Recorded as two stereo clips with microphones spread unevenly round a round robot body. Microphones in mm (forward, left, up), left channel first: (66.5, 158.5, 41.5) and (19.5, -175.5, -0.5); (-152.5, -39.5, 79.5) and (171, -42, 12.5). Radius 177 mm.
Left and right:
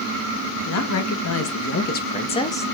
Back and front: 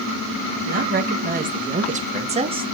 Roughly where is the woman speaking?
Ahead left.